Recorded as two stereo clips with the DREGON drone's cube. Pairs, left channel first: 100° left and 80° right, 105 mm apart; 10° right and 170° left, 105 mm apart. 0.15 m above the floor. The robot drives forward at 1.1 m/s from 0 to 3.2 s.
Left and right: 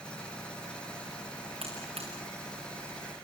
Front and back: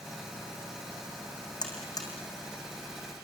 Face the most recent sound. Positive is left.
turn(degrees=-75)